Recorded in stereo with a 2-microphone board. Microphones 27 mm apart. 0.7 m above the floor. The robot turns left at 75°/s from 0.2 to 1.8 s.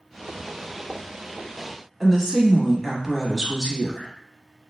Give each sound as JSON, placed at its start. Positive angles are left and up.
{"t": 2.0, "sound": "a woman speaking", "side_deg": -5, "distance_m": 0.9}